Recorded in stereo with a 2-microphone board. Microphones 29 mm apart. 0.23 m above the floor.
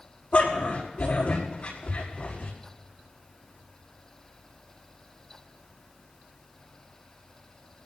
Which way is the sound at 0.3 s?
55° left (ahead or behind).